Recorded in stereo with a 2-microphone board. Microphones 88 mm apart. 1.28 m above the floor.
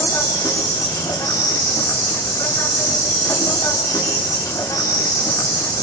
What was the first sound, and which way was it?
An insect, 40° left (ahead or behind).